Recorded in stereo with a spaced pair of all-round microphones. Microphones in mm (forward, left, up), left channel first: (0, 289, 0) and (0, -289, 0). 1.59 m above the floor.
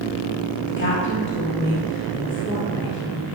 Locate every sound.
0.7 s a woman speaking: 20° left (ahead or behind), 2.5 m